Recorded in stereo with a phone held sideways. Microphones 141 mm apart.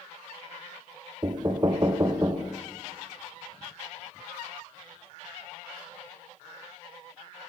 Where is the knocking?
30° right (ahead or behind), 0.6 m.